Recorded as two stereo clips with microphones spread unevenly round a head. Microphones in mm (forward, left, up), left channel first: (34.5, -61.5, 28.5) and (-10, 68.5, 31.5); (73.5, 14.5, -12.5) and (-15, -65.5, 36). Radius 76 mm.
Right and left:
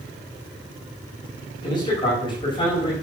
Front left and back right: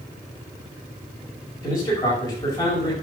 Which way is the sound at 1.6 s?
15° right.